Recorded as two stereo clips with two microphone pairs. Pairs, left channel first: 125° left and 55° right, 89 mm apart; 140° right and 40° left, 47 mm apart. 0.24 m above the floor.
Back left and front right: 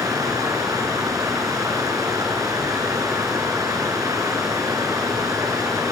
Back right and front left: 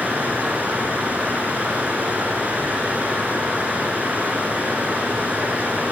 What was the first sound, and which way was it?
Running water, 10° right.